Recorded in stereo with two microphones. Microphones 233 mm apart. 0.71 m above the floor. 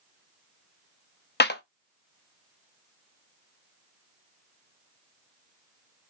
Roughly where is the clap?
Left.